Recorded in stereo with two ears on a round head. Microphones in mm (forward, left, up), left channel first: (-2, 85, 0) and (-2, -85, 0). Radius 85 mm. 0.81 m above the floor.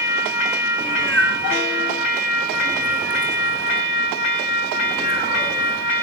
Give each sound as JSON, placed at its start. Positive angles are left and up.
{"t": 0.8, "sound": "a cat meowing", "side_deg": 5, "distance_m": 5.5}